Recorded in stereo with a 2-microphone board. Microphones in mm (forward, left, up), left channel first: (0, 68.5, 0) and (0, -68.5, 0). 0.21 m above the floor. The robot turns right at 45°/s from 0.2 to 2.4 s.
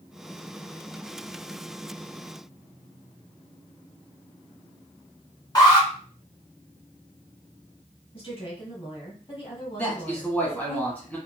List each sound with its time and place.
5.5 s an alarm: 30° left (ahead or behind), 1.3 m
8.1 s a woman speaking: 40° left (ahead or behind), 1.9 m
9.8 s a man speaking: 10° left (ahead or behind), 1.4 m